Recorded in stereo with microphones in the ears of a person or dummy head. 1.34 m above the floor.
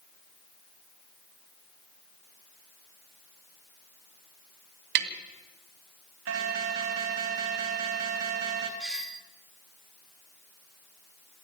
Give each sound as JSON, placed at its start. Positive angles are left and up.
{"t": 5.0, "sound": "tapping", "side_deg": -55, "distance_m": 2.0}
{"t": 6.3, "sound": "an alarm", "side_deg": -65, "distance_m": 3.5}
{"t": 8.8, "sound": "a doorbell", "side_deg": -5, "distance_m": 1.5}